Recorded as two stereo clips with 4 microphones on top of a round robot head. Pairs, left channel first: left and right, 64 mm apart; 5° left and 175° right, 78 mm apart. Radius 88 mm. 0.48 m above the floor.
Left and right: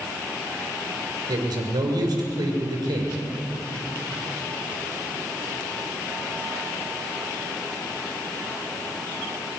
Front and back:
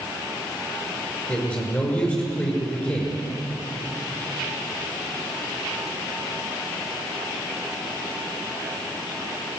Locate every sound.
1.3 s a man speaking: 70° right, 6.5 m